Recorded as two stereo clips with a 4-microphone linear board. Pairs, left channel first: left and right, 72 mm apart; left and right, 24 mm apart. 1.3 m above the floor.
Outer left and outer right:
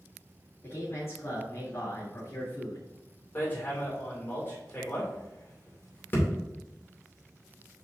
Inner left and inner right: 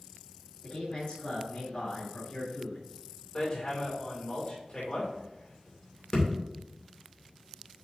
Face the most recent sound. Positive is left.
turn(degrees=30)  # may be behind; listen again after turning